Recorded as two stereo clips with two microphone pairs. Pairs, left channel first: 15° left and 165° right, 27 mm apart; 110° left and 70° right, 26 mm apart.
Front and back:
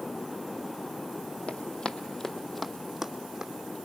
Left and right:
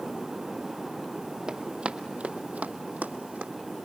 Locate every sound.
1.5 s running footsteps: 20° right, 1.1 m; by 3.5 s 100° right, 1.5 m